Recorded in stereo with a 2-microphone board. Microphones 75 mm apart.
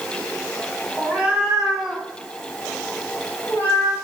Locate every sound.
1.0 s a cat meowing: 20° right (ahead or behind), 1.3 m; by 4.0 s 30° left (ahead or behind), 1.4 m